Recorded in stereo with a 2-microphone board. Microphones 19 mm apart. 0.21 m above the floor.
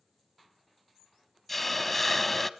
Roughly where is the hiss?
Centre.